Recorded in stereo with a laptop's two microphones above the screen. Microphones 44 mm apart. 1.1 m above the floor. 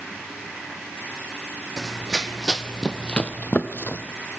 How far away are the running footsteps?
About 2.0 m.